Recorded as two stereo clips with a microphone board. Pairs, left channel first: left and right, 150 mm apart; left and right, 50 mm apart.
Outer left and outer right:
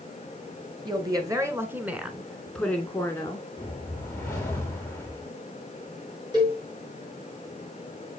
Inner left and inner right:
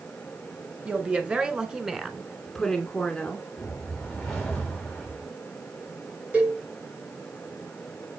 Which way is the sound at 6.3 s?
25° right (ahead or behind).